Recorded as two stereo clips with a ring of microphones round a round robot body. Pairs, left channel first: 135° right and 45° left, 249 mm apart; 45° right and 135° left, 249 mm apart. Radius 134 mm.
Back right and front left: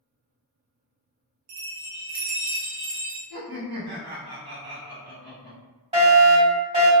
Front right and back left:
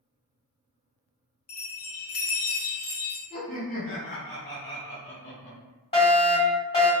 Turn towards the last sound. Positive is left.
turn(degrees=0)